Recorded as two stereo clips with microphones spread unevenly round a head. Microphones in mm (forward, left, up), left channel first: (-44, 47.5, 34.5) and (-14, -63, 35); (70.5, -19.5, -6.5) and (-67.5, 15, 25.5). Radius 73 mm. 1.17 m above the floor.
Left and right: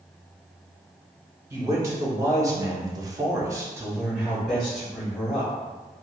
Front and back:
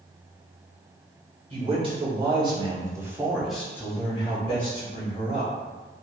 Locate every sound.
1.5 s a man speaking: 135° right, 1.3 m; by 5.5 s 20° left, 1.2 m